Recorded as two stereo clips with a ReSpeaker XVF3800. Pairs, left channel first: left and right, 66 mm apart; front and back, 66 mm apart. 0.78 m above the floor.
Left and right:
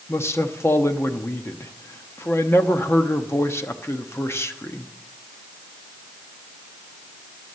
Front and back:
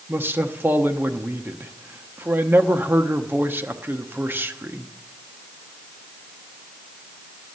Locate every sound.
0.1 s a man speaking: 130° left, 0.9 m